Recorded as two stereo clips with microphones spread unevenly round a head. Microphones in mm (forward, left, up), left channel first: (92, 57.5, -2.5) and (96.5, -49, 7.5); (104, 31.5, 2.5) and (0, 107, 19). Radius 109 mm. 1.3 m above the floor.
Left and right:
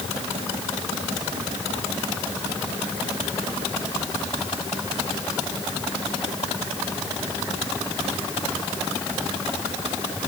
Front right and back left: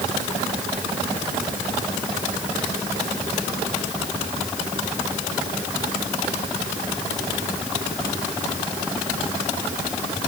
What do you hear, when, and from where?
Only background noise.